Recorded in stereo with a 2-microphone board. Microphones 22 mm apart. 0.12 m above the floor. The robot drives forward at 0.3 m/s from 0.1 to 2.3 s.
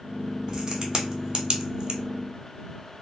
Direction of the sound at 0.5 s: 30° right (ahead or behind).